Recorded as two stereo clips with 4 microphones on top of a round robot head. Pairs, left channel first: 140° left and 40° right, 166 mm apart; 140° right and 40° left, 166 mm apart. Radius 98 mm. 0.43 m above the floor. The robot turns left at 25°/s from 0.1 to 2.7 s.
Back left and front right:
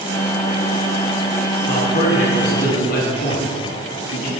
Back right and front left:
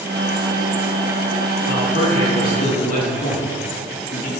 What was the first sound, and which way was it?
A man speaking, 155° right.